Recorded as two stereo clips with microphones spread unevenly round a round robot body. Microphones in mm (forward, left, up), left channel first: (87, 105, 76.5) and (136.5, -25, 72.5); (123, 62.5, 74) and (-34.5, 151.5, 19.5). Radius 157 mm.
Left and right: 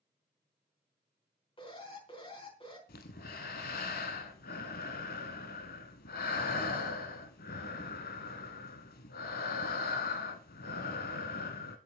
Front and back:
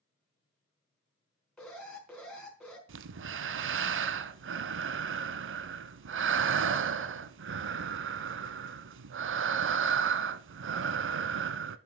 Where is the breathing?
135° left, 0.6 m.